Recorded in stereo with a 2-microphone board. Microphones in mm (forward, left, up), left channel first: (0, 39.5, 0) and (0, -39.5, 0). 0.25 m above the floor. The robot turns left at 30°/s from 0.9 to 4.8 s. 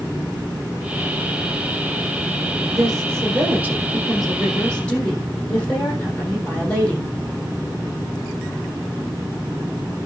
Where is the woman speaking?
135° right, 8 m; by 7.1 s 165° left, 8 m.